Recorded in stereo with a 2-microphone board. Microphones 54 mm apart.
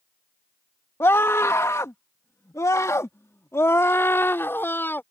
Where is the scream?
55° left (ahead or behind); by 5.0 s 40° left (ahead or behind).